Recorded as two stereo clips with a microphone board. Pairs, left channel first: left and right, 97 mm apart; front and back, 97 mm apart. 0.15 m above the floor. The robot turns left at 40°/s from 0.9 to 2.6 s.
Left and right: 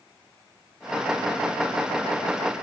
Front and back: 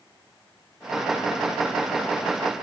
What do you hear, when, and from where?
Only background noise.